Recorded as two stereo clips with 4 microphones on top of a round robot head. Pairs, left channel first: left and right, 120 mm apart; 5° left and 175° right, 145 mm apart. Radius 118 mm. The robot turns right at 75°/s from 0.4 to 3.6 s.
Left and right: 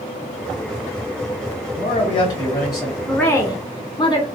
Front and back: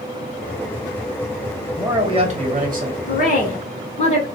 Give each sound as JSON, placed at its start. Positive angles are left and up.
{"t": 1.8, "sound": "a man speaking", "azimuth_deg": 105, "distance_m": 1.3}
{"t": 3.1, "sound": "a woman speaking", "azimuth_deg": 0, "distance_m": 1.3}